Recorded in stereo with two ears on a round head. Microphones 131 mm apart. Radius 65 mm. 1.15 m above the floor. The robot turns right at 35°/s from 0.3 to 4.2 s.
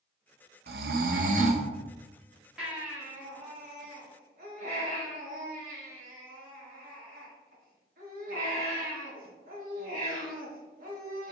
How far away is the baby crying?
About 1.5 m.